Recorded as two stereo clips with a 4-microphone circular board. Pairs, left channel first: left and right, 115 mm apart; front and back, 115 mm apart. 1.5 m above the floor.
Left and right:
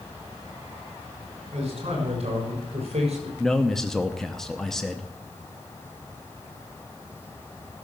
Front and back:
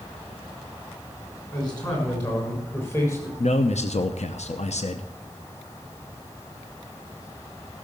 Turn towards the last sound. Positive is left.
turn(degrees=5)